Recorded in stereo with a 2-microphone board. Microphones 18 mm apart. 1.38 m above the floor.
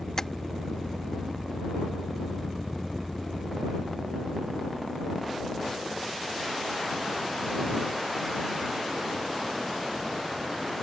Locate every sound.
0.2 s tapping: 25° left (ahead or behind)